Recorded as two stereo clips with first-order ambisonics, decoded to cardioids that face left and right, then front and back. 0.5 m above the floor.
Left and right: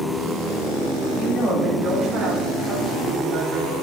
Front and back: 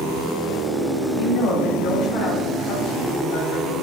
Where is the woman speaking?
10° left, 3 m; by 3.7 s 15° right, 3.5 m.